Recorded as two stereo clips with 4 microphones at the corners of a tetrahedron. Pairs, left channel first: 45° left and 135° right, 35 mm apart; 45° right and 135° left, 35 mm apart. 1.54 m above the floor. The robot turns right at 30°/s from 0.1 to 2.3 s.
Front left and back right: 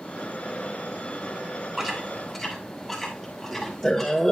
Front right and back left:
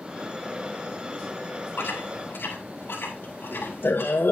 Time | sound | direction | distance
1.8 | chewing | 55° right | 2 m